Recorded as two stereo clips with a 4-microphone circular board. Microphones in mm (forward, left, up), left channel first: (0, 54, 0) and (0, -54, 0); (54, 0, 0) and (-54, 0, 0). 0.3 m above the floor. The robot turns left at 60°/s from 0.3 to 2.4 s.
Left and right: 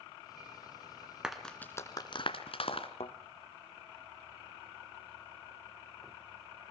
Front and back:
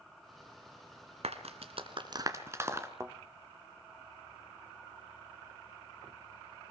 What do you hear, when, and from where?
1.2 s a clap: 175° right, 2.5 m; by 2.9 s 115° left, 2.5 m
3.0 s a thud: 115° left, 1.6 m